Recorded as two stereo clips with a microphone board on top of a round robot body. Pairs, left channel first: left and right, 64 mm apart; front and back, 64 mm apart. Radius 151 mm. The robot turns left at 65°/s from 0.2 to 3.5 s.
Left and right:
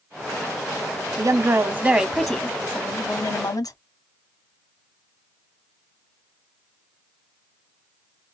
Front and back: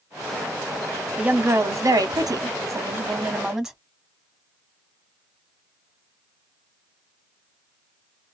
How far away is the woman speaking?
About 1.3 m.